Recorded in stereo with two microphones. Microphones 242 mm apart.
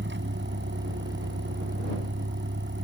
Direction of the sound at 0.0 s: 50° right (ahead or behind).